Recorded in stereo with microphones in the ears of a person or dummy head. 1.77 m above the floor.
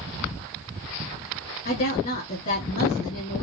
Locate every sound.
1.6 s a woman speaking: 45° left (ahead or behind), 3.5 m